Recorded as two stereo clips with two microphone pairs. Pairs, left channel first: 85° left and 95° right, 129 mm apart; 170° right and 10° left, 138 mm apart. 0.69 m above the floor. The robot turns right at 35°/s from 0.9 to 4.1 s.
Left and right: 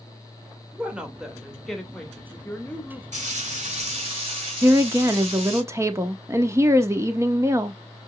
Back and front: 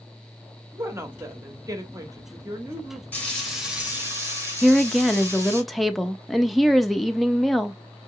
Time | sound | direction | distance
0.7 | a woman speaking | 25° right | 1.0 m
3.1 | frying | 90° right | 2.5 m
4.6 | a woman speaking | 75° right | 0.5 m